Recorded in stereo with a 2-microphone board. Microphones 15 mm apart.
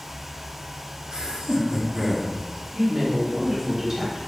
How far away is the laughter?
About 0.6 m.